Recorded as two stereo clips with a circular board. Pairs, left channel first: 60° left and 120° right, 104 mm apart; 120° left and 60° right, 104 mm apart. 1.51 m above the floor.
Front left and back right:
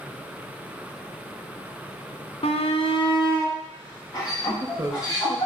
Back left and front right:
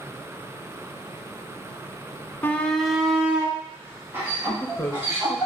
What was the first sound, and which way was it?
A shout, 50° left.